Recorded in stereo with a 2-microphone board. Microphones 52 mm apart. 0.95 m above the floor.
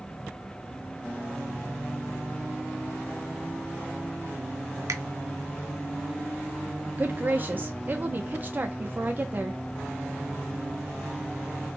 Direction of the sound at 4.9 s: 80° right.